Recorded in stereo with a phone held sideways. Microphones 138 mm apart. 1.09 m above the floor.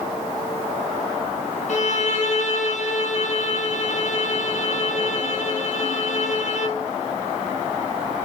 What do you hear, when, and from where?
1.7 s a violin: 60° left (ahead or behind), 0.8 m